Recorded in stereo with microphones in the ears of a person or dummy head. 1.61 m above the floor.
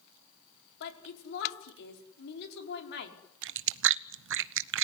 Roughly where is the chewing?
Right.